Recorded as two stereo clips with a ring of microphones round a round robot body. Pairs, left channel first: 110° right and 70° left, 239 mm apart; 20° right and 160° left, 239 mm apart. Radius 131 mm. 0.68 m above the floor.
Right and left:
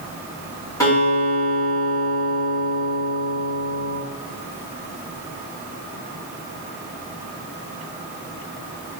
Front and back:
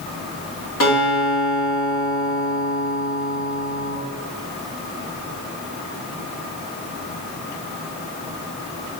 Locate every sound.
0.8 s a guitar: 40° right, 1.9 m